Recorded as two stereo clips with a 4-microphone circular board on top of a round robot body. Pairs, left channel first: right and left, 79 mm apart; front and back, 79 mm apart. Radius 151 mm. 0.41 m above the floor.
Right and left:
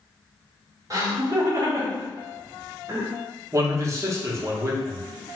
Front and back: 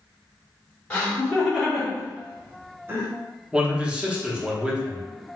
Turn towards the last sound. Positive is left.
turn(degrees=110)